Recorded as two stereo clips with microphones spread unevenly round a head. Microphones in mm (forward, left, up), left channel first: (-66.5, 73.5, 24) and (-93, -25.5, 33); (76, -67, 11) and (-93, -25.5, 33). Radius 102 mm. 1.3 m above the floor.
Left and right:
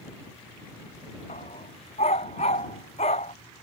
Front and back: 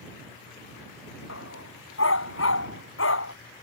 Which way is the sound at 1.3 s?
20° left.